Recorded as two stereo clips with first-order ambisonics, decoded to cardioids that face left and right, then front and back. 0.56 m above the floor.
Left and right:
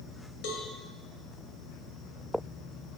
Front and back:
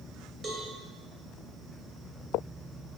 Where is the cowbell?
110° left, 1.5 m.